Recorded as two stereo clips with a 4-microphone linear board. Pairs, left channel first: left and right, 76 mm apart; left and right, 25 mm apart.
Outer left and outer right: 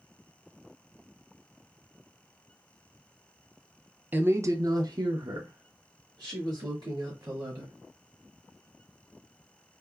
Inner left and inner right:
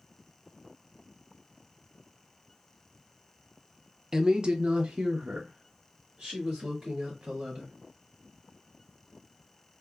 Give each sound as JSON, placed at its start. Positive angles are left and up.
{"t": 4.1, "sound": "a woman speaking", "side_deg": -25, "distance_m": 0.5}